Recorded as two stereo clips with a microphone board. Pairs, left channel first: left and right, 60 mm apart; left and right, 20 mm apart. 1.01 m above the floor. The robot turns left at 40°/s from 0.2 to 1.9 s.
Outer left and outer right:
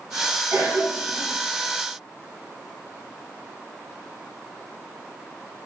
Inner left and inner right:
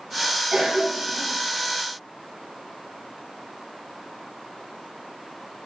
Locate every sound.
0.5 s a cough: 60° right (ahead or behind), 1.0 m; by 1.3 s 50° right (ahead or behind), 1.0 m